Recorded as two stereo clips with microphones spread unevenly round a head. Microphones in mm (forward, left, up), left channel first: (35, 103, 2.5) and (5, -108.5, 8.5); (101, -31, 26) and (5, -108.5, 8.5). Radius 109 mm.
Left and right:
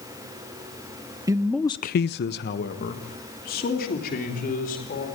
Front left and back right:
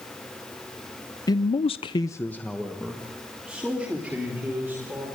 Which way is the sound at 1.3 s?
25° right.